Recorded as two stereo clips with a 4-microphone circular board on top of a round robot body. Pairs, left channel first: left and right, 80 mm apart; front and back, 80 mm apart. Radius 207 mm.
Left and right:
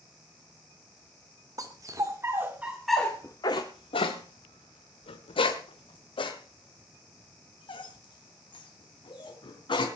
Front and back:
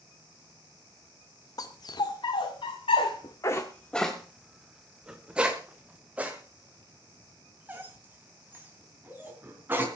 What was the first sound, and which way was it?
A dog barking, 45° right.